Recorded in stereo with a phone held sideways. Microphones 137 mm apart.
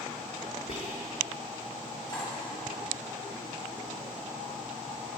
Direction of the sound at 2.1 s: 30° left (ahead or behind).